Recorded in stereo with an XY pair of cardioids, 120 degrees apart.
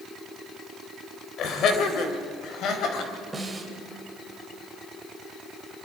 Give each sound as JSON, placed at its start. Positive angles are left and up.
{"t": 1.4, "sound": "laughter", "azimuth_deg": 60, "distance_m": 4.0}
{"t": 3.3, "sound": "a snare drum", "azimuth_deg": -15, "distance_m": 3.5}